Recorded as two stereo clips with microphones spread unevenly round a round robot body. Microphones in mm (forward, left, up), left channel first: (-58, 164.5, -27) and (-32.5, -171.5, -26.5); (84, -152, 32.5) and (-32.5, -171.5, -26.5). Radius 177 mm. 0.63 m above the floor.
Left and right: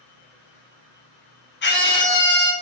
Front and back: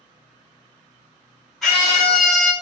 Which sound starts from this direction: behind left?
A scream, at 1.6 s.